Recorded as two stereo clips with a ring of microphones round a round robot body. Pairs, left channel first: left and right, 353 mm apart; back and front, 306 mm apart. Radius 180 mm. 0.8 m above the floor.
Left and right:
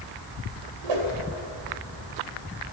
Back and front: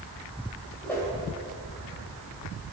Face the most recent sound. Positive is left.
turn(degrees=-95)